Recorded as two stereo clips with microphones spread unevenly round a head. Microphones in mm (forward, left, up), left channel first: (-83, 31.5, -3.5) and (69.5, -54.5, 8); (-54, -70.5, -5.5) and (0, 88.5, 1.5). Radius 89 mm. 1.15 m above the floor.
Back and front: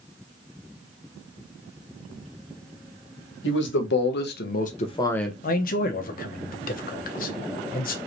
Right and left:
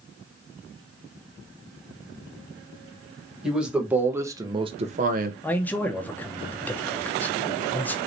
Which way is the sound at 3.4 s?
160° left.